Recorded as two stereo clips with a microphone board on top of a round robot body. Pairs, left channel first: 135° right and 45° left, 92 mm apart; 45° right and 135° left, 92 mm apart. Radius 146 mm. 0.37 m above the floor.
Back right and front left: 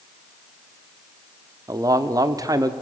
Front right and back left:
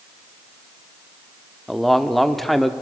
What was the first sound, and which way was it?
A man speaking, 40° left.